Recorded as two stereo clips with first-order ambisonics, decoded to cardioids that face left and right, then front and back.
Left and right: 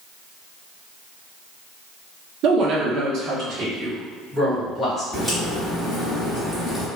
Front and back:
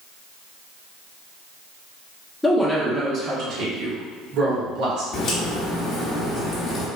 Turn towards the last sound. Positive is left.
turn(degrees=-5)